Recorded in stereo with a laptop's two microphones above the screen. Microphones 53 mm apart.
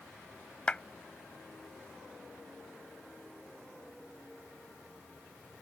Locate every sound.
0.7 s a clap: 20° left (ahead or behind)